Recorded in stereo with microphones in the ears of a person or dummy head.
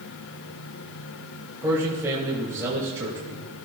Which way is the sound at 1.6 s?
15° right (ahead or behind).